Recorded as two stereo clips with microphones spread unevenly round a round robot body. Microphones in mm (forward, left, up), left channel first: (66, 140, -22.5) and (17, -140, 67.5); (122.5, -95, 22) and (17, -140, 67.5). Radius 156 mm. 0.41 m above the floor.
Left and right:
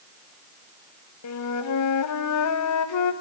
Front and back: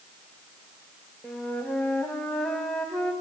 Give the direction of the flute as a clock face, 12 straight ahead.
9 o'clock.